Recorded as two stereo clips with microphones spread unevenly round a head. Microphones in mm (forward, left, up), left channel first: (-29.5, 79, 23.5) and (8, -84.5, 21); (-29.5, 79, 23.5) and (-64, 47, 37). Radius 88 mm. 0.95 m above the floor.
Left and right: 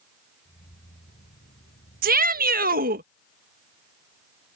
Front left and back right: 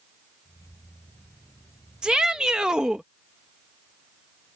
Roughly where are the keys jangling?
Ahead left.